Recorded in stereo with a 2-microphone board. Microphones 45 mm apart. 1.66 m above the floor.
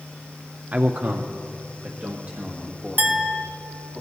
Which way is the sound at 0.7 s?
35° right (ahead or behind).